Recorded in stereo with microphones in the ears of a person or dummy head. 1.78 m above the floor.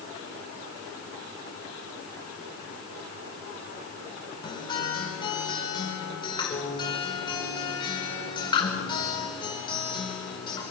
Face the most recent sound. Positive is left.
turn(degrees=20)  # may be behind; listen again after turning